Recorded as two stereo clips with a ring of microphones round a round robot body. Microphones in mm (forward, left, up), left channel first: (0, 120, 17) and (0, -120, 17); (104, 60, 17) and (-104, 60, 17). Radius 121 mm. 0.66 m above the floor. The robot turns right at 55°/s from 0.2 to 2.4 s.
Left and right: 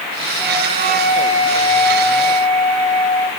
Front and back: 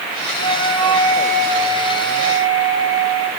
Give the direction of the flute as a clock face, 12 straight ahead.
6 o'clock.